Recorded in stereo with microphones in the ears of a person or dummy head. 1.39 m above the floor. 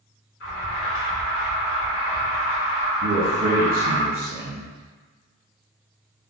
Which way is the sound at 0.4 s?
55° left (ahead or behind).